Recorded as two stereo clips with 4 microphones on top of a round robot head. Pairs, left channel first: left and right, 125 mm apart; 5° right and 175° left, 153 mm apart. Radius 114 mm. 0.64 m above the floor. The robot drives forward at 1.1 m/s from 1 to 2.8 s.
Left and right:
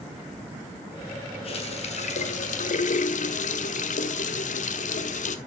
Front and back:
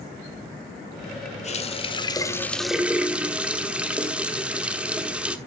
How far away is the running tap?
About 1.9 m.